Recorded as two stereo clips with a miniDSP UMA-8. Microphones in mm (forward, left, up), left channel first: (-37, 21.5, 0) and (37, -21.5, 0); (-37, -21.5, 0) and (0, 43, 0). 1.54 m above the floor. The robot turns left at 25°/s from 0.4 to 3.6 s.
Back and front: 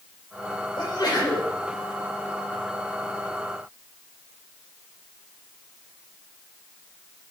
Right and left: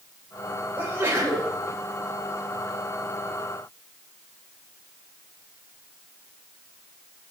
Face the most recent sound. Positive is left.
turn(degrees=45)